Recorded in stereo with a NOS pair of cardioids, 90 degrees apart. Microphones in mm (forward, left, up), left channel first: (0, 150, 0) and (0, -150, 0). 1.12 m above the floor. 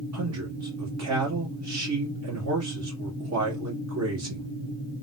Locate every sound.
0.1 s a man speaking: 60° right, 1.8 m